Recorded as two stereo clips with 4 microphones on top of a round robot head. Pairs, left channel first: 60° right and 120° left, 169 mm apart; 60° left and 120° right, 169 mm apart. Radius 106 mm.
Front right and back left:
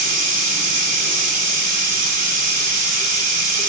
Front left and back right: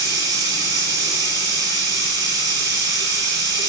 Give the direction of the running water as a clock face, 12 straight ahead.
6 o'clock.